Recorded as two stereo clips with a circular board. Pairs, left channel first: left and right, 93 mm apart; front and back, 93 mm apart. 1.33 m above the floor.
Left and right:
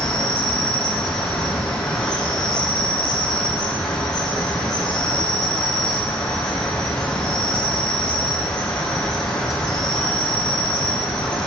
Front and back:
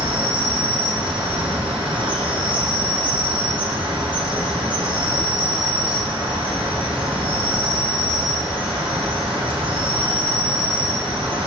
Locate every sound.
0.0 s an insect: 170° left, 1.7 m